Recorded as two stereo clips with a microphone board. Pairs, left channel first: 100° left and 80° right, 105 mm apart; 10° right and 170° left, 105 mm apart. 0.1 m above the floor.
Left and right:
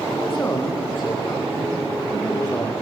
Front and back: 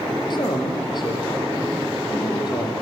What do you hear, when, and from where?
0.3 s a man speaking: 30° left, 6.5 m